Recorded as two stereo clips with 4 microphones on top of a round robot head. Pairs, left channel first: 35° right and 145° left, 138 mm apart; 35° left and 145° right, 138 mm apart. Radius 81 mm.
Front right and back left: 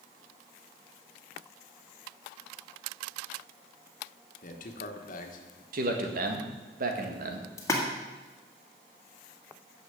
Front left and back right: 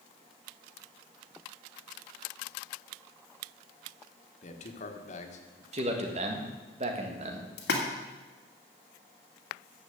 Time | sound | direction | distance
4.4 | a man speaking | 5° right | 1.4 m
5.7 | a man speaking | 170° left | 1.8 m
7.6 | a splash | 35° left | 1.8 m